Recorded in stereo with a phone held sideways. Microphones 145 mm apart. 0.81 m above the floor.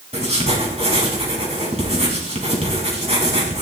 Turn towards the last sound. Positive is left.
turn(degrees=-45)  # may be behind; listen again after turning